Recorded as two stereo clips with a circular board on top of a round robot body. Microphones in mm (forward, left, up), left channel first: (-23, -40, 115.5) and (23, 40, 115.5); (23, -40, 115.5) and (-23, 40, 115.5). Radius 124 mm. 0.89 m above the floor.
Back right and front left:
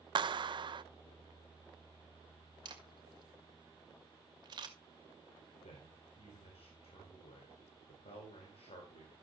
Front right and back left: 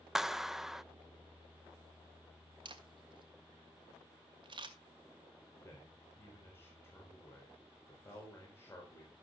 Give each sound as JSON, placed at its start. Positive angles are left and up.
{"t": 0.1, "sound": "a clap", "azimuth_deg": 35, "distance_m": 0.6}
{"t": 2.6, "sound": "a camera shutter", "azimuth_deg": 95, "distance_m": 2.5}
{"t": 5.6, "sound": "a man speaking", "azimuth_deg": -125, "distance_m": 4.0}